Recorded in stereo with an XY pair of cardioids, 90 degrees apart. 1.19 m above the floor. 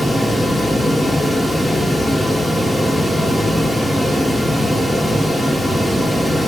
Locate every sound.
0.0 s a fan: straight ahead, 3 m